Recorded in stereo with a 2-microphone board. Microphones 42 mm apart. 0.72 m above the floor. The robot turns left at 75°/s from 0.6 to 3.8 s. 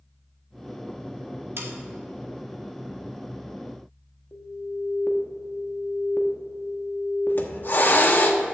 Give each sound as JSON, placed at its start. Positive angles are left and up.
{"t": 1.6, "sound": "sawing", "side_deg": -65, "distance_m": 1.2}
{"t": 4.3, "sound": "an alarm", "side_deg": 50, "distance_m": 0.9}
{"t": 7.3, "sound": "a hiss", "side_deg": 55, "distance_m": 0.8}